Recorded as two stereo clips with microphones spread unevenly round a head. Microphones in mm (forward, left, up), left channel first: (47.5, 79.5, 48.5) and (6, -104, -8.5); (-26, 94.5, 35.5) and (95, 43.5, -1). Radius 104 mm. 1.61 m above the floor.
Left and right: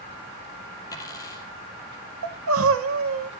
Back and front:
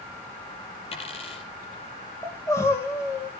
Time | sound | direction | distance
0.9 | a dropped coin | 140° left | 3 m
2.2 | crying | 135° right | 1.2 m